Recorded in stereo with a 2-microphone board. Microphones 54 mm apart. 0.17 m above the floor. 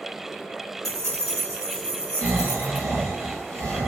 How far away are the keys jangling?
About 2.5 m.